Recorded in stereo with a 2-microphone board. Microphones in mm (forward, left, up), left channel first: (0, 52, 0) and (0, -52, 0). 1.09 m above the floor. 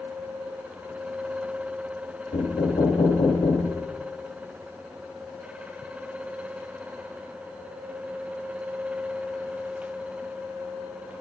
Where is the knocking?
80° left, 1.7 m.